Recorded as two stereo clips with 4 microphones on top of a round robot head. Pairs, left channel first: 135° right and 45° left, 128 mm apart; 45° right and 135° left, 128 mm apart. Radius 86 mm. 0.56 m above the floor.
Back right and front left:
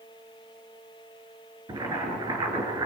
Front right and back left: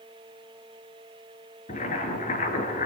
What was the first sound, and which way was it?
Boiling, 15° right.